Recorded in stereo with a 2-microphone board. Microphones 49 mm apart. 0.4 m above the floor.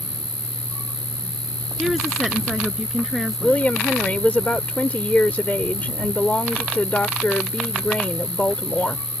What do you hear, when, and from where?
0.0 s an insect: 50° right (ahead or behind)
1.8 s a woman speaking: 5° right (ahead or behind)
3.4 s a woman speaking: 35° left (ahead or behind)